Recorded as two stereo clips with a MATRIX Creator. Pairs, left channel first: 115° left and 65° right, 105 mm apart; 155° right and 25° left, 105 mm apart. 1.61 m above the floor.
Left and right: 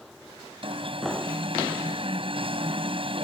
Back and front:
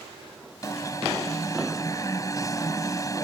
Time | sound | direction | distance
0.6 | an alarm | 100° right | ?